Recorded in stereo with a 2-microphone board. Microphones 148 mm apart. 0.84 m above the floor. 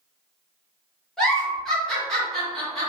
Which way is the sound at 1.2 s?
5° left (ahead or behind).